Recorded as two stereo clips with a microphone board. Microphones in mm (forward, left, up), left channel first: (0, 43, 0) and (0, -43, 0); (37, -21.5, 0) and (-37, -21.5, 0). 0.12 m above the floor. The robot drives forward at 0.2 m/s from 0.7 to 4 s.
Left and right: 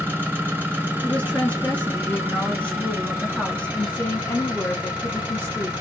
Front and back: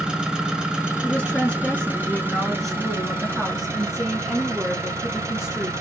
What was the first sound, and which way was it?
An engine running, 115° right.